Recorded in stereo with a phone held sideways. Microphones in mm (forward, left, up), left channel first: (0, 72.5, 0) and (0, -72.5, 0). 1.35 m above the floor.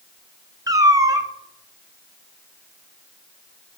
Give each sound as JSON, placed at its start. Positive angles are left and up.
{"t": 0.7, "sound": "a cat meowing", "side_deg": -25, "distance_m": 0.5}